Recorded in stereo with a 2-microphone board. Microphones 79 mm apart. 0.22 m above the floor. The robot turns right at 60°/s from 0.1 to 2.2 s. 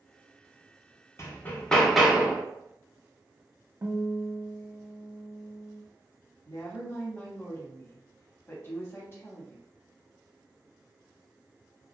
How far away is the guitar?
About 0.5 m.